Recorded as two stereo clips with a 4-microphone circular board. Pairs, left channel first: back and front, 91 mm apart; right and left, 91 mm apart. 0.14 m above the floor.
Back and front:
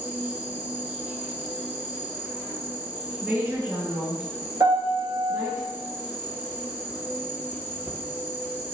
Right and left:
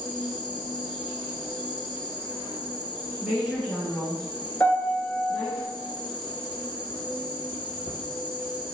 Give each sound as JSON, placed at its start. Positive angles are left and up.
{"t": 0.0, "sound": "an insect", "azimuth_deg": -70, "distance_m": 0.8}
{"t": 3.2, "sound": "a woman speaking", "azimuth_deg": 10, "distance_m": 1.8}
{"t": 4.6, "sound": "a piano", "azimuth_deg": -30, "distance_m": 1.0}